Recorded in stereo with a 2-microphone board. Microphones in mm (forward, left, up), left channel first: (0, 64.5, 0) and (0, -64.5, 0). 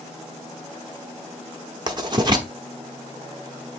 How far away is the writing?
About 0.9 m.